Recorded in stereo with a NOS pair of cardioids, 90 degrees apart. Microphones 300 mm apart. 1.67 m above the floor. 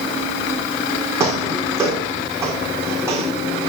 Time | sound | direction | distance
1.2 | footsteps | 10° right | 5.5 m